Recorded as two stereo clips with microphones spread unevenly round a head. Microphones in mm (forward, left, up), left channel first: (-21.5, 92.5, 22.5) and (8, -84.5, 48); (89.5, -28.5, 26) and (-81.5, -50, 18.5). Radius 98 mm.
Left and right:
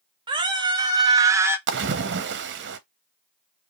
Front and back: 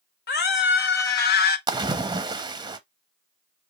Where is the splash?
105° right, 0.8 m.